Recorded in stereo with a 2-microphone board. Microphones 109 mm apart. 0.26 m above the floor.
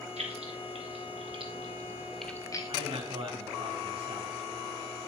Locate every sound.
0.2 s keys jangling: 75° right (ahead or behind), 3 m; by 2.7 s 40° left (ahead or behind), 1.2 m
2.7 s a man speaking: 55° right (ahead or behind), 2.5 m